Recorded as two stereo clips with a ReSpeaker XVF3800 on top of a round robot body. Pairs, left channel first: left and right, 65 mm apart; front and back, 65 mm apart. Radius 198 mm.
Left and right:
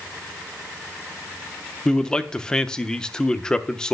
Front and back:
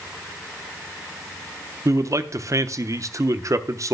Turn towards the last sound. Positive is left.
turn(degrees=165)